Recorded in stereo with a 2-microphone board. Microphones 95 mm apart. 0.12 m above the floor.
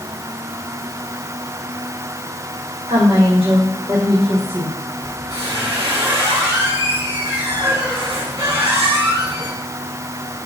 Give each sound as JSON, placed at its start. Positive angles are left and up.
{"t": 2.9, "sound": "a woman speaking", "side_deg": -70, "distance_m": 5.0}
{"t": 5.0, "sound": "a squeak", "side_deg": -40, "distance_m": 5.5}